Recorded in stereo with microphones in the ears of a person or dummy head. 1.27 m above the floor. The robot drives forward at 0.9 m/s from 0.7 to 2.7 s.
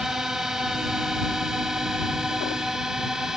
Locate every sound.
0.0 s a drone: 5° right (ahead or behind)